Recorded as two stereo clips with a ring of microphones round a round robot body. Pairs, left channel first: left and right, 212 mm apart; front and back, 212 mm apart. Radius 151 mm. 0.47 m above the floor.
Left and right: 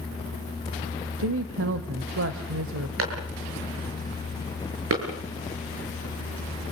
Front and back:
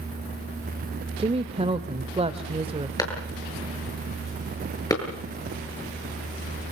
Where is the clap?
75° right, 7.5 m.